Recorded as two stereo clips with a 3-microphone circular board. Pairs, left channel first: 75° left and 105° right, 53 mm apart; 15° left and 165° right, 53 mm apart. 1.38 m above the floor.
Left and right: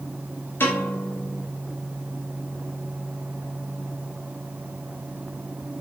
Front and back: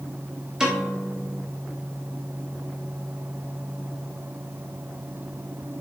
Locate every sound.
0.6 s a piano: 120° left, 1.1 m